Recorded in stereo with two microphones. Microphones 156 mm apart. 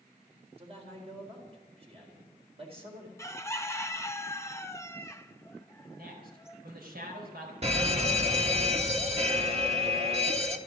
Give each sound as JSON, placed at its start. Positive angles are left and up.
{"t": 0.6, "sound": "a man speaking", "side_deg": -40, "distance_m": 4.0}
{"t": 3.2, "sound": "a bird", "side_deg": 15, "distance_m": 0.7}
{"t": 5.9, "sound": "a man speaking", "side_deg": -75, "distance_m": 4.5}
{"t": 7.6, "sound": "an alarm", "side_deg": -40, "distance_m": 1.3}